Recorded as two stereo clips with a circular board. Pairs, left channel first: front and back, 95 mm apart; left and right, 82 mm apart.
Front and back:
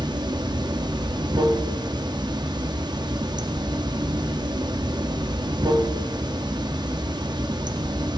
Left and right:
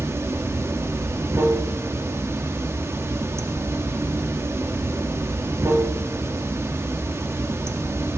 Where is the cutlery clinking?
No cutlery clinking in this recording.